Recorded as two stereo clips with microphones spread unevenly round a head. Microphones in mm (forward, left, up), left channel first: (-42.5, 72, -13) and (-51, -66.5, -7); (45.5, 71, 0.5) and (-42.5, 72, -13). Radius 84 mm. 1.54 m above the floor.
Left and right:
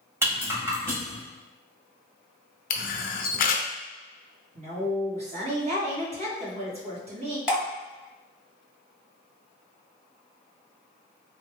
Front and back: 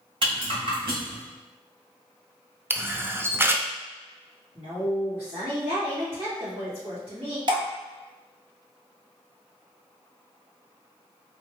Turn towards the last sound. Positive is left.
turn(degrees=-170)